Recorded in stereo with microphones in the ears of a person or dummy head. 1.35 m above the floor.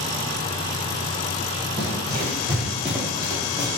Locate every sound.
1.8 s running footsteps: 35° right (ahead or behind), 1.9 m; by 3.7 s 15° left (ahead or behind), 2.0 m